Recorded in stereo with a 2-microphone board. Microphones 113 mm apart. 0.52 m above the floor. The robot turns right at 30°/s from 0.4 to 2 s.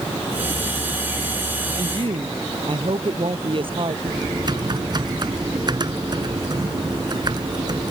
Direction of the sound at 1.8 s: 55° right (ahead or behind).